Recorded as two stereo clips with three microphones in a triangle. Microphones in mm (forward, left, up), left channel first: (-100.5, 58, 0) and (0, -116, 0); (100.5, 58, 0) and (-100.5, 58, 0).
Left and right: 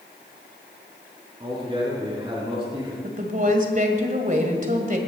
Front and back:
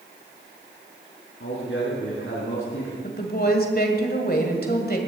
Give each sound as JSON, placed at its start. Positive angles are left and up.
{"t": 1.4, "sound": "a man speaking", "azimuth_deg": 5, "distance_m": 3.5}
{"t": 3.0, "sound": "a woman speaking", "azimuth_deg": -20, "distance_m": 2.0}